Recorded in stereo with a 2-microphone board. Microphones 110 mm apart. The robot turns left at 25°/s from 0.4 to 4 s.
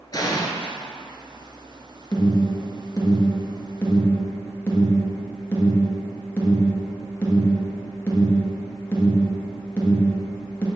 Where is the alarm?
40° left (ahead or behind), 1.8 m; by 10.7 s 20° left (ahead or behind), 1.8 m.